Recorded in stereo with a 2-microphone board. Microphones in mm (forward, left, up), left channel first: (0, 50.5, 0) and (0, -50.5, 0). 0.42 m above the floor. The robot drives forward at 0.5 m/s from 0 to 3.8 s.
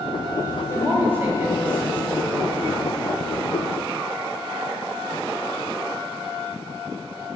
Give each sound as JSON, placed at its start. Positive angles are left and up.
{"t": 0.7, "sound": "a woman speaking", "side_deg": -20, "distance_m": 2.5}